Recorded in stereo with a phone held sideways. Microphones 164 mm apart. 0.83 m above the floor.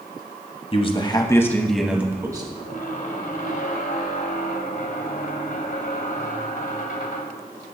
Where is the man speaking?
40° left (ahead or behind), 1.0 m; by 2.5 s 25° right (ahead or behind), 0.9 m.